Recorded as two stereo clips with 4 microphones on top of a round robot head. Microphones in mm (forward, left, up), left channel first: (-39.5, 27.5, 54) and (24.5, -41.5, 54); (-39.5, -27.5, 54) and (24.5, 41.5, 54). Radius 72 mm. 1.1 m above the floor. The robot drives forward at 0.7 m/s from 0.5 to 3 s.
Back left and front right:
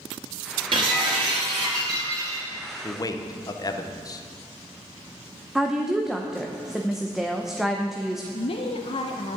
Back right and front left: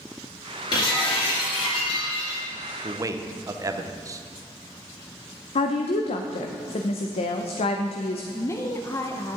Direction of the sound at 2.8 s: 85° left.